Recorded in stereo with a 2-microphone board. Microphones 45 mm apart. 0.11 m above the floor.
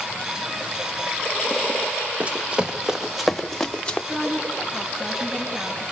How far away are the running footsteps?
About 1.6 m.